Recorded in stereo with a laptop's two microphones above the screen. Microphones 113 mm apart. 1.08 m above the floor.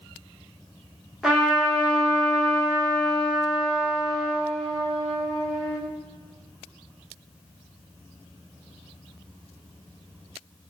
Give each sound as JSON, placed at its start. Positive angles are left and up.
{"t": 1.2, "sound": "a trumpet", "side_deg": -5, "distance_m": 1.5}